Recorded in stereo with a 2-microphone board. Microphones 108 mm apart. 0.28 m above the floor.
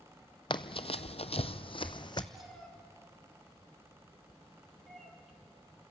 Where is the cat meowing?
Centre (ahead or behind), 3.5 m.